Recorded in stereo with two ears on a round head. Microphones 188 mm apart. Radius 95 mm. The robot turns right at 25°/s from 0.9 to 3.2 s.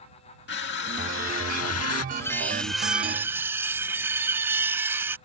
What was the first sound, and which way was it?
Crushing, 50° left (ahead or behind).